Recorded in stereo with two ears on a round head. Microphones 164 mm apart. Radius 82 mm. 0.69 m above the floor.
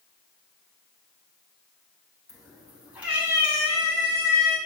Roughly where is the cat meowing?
Centre.